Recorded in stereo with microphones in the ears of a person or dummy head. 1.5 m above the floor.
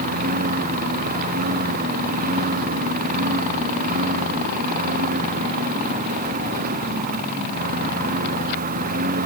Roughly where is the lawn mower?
Right.